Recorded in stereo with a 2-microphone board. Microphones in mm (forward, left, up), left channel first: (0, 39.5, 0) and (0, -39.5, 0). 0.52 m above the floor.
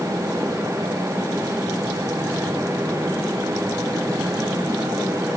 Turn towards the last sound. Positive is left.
No sound to turn to.